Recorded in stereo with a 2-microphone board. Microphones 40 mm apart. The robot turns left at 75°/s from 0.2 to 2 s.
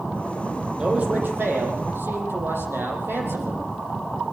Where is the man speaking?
20° right, 6.5 m; by 3.6 s 110° right, 6.5 m.